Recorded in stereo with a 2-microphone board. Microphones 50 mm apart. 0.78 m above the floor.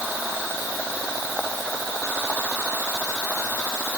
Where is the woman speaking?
I don't hear a woman speaking.